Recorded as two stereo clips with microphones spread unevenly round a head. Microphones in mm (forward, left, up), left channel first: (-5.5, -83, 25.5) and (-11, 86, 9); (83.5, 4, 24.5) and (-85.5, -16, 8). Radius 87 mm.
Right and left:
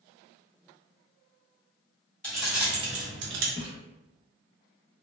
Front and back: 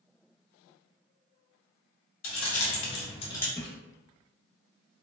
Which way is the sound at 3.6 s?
45° right.